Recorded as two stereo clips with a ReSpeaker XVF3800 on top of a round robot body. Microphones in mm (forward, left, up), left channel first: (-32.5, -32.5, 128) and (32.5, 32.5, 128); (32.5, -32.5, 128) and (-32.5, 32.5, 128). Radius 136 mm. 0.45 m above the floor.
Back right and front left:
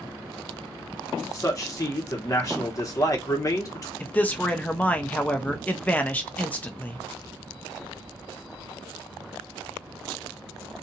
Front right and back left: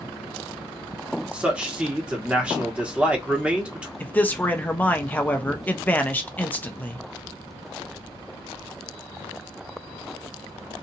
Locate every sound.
1.3 s a man speaking: 155° right, 1.1 m
4.0 s a man speaking: 90° right, 0.8 m